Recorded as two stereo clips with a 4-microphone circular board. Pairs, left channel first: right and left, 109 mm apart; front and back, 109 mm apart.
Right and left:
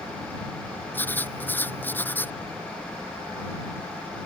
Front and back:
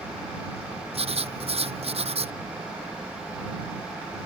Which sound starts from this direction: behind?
Writing, at 0.9 s.